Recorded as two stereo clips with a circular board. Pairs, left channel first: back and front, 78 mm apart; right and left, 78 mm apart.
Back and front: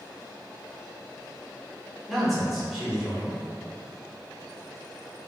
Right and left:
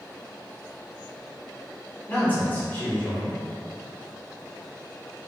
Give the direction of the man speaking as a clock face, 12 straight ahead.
3 o'clock.